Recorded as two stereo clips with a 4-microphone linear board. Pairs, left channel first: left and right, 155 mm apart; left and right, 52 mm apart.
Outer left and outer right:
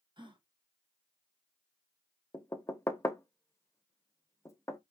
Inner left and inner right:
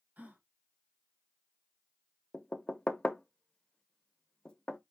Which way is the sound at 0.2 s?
30° right (ahead or behind).